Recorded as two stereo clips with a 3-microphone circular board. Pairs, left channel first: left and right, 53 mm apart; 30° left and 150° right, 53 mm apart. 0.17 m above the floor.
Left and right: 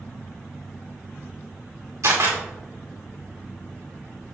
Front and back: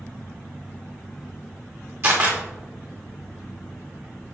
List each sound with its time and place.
2.0 s a camera shutter: 110° right, 4.5 m